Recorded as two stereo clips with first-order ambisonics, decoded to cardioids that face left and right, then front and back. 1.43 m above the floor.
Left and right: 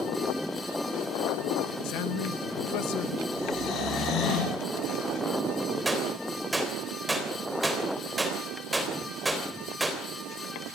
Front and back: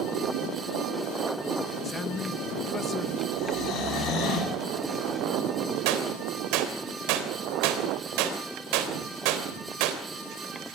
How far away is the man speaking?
About 1.1 m.